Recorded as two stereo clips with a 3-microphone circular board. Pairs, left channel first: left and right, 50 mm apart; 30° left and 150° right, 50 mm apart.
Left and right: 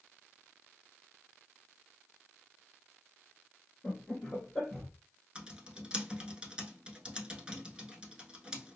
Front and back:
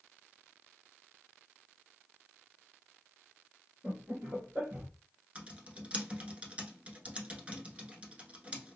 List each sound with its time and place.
3.8 s laughter: 155° left, 1.6 m; by 4.9 s 170° right, 1.7 m
5.3 s typing on a keyboard: 135° right, 0.9 m